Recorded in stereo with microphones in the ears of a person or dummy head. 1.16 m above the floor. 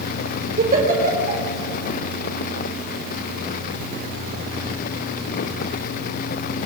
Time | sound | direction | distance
0.6 | a giggle | 40° right (ahead or behind) | 4.5 m